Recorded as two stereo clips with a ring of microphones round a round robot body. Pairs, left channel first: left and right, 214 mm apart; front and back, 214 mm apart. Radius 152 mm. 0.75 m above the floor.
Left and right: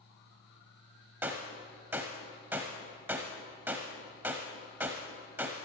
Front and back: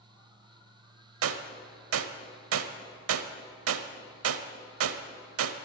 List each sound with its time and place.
1.2 s a gunshot: 175° right, 0.9 m